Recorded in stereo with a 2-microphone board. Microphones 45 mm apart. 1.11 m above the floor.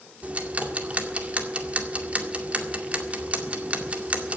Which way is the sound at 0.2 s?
30° right (ahead or behind).